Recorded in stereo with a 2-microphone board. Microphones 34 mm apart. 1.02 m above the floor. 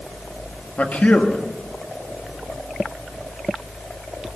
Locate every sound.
0.8 s a man speaking: 50° left (ahead or behind), 1.8 m